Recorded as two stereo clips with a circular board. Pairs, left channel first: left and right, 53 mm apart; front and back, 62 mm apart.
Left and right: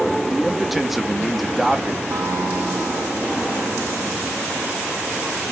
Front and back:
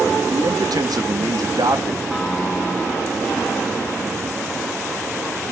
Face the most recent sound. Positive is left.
turn(degrees=-100)